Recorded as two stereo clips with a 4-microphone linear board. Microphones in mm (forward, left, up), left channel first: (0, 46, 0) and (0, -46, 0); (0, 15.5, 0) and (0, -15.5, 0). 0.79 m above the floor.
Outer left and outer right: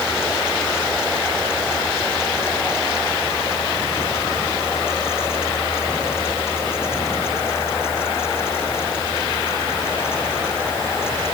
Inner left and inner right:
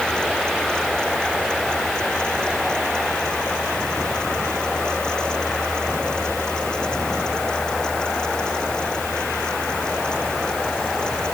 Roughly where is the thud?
No thud in this recording.